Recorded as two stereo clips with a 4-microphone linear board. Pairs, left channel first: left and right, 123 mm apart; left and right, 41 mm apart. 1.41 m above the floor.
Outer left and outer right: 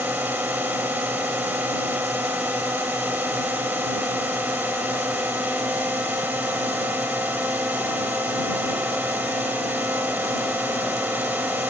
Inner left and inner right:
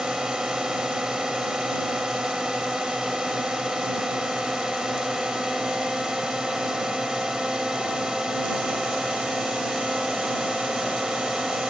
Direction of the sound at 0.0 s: 15° right (ahead or behind).